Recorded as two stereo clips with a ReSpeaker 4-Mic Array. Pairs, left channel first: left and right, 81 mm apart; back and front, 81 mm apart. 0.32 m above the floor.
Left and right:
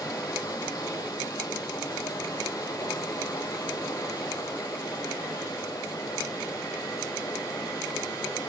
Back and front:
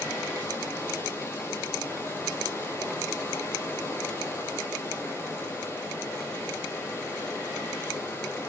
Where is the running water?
125° left, 3 m.